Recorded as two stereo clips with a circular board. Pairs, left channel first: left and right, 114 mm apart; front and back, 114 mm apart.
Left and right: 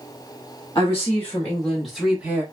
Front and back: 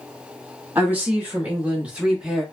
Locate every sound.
0.8 s a woman speaking: 125° left, 1.1 m; by 2.4 s 110° right, 1.0 m